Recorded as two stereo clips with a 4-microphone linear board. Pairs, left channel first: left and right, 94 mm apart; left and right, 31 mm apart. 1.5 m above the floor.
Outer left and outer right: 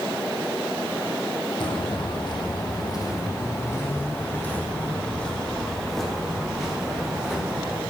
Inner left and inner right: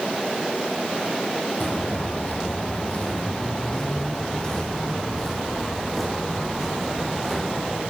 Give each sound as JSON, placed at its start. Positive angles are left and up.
{"t": 1.6, "sound": "footsteps", "side_deg": 55, "distance_m": 4.0}